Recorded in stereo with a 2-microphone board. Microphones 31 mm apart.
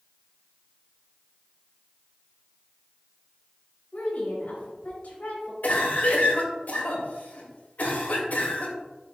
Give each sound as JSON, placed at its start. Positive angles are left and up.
{"t": 3.9, "sound": "a woman speaking", "side_deg": 65, "distance_m": 3.0}
{"t": 5.6, "sound": "a cough", "side_deg": 70, "distance_m": 2.0}